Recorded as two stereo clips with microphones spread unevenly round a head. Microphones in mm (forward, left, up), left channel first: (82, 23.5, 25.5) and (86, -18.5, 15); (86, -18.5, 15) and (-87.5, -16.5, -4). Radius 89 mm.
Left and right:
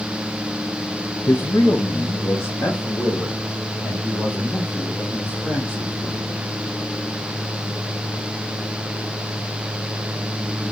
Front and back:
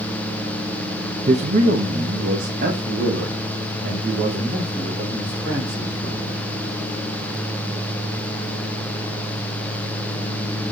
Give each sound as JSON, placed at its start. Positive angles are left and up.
{"t": 1.3, "sound": "a man speaking", "azimuth_deg": 125, "distance_m": 0.8}